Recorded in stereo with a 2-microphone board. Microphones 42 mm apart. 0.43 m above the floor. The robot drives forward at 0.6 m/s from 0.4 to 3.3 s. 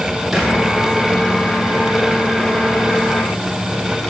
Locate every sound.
0.3 s a thud: 10° right (ahead or behind), 2.5 m